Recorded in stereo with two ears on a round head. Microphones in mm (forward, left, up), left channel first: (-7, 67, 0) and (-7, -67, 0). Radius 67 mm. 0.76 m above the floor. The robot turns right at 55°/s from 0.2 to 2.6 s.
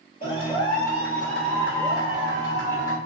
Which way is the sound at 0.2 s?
115° left.